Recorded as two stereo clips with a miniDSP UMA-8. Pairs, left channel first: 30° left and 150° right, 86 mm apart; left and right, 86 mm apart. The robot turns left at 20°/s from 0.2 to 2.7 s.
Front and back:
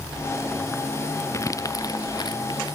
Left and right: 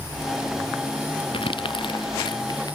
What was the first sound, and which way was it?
Crumpling, 85° left.